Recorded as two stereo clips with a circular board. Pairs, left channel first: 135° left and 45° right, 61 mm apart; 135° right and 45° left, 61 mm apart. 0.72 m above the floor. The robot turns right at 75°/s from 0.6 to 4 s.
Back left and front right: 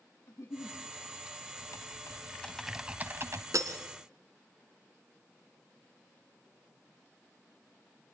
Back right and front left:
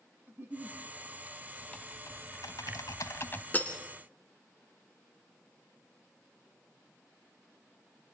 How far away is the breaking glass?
About 2 m.